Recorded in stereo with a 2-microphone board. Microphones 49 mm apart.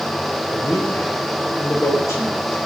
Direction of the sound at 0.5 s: 80° left.